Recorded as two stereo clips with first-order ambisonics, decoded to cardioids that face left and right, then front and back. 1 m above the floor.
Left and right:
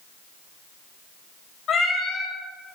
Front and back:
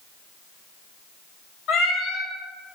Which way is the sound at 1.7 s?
35° left.